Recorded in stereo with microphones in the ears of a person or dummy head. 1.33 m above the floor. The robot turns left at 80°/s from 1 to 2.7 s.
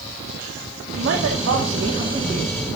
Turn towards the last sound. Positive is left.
turn(degrees=165)